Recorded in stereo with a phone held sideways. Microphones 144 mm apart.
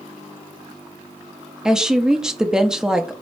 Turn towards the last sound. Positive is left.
turn(degrees=-5)  # may be behind; listen again after turning